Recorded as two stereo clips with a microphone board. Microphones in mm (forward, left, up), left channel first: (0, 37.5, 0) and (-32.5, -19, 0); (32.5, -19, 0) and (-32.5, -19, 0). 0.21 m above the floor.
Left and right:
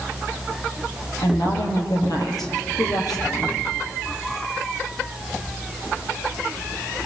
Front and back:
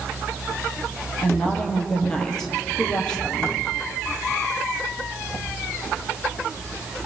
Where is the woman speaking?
80° left, 6.5 m.